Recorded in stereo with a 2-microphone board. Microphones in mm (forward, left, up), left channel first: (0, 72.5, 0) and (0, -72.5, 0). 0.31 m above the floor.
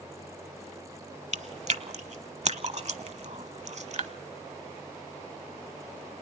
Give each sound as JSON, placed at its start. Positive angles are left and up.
{"t": 1.3, "sound": "chewing", "side_deg": -50, "distance_m": 0.9}